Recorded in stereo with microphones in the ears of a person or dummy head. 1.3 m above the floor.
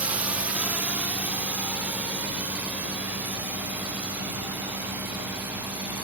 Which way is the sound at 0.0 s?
10° right (ahead or behind).